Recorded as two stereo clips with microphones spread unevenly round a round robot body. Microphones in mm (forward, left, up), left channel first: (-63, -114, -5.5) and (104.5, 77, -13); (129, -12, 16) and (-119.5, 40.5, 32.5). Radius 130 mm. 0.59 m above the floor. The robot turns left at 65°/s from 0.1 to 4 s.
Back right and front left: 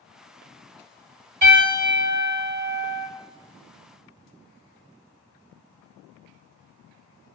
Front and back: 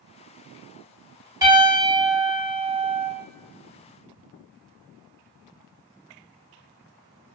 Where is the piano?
90° left, 1.8 m; by 3.1 s 15° right, 1.8 m.